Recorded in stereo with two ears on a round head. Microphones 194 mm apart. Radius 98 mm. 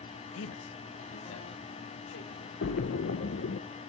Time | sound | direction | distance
0.3 | a man speaking | 65° left (ahead or behind) | 0.9 m
2.6 | a splash | 55° left (ahead or behind) | 0.8 m